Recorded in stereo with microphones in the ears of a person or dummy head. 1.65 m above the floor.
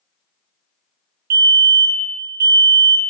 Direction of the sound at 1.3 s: 50° right (ahead or behind).